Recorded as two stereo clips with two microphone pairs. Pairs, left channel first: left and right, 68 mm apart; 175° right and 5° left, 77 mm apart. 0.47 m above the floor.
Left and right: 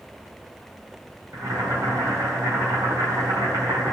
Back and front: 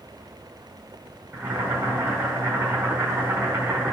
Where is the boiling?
55° right, 4.5 m.